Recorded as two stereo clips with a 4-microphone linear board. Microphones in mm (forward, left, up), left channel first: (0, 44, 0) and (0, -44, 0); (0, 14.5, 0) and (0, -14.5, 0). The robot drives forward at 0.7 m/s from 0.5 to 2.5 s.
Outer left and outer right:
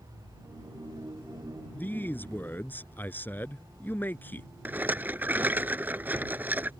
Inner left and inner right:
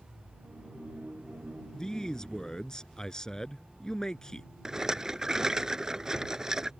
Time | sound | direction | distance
1.7 | a man speaking | 20° left (ahead or behind) | ?
4.7 | a rattle | 20° right (ahead or behind) | ?